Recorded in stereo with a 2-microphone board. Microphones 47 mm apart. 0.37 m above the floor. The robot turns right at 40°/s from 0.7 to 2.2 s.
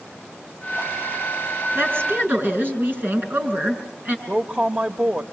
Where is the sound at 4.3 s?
35° right (ahead or behind), 1.2 m.